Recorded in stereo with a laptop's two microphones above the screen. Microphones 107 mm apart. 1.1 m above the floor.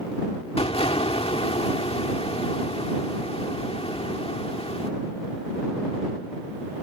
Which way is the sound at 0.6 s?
70° left (ahead or behind).